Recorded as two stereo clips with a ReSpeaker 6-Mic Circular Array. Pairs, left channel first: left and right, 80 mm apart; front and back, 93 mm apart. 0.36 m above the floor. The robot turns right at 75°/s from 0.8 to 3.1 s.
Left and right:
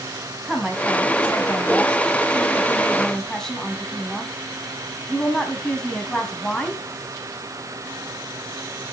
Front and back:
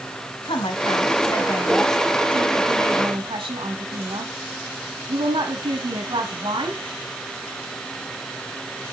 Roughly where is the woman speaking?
Ahead.